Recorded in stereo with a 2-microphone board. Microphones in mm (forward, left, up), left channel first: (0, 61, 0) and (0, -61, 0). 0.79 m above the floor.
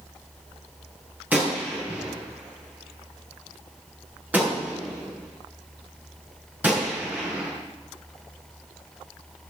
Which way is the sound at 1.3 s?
15° right (ahead or behind).